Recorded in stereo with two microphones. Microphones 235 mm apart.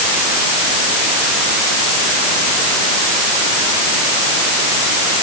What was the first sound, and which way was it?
Only background noise.